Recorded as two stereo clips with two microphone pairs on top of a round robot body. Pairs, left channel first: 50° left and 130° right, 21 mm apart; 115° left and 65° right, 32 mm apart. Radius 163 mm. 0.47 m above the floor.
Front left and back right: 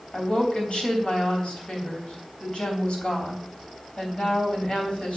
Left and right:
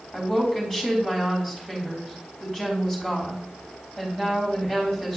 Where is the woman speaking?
30° left, 3 m.